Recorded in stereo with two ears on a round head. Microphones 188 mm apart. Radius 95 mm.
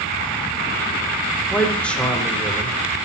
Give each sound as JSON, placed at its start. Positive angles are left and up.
{"t": 1.5, "sound": "a man speaking", "side_deg": 5, "distance_m": 3.0}